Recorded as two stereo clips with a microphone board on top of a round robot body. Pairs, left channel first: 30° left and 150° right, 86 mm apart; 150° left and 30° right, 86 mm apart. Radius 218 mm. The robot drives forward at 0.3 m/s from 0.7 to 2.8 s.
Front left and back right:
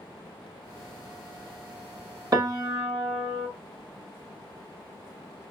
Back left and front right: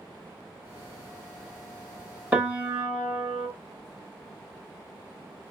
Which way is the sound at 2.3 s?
100° right.